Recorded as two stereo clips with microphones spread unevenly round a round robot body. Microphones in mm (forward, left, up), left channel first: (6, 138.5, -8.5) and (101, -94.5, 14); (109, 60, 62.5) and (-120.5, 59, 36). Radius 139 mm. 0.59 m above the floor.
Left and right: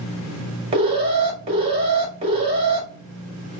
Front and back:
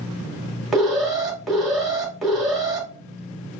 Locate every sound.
0.7 s an alarm: 110° right, 1.7 m